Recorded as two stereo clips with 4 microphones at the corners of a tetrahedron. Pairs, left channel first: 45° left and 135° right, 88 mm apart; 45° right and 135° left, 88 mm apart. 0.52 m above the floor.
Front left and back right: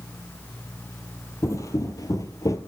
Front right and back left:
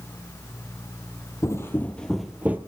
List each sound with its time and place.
1.4 s footsteps: straight ahead, 0.8 m; by 2.6 s 75° left, 0.7 m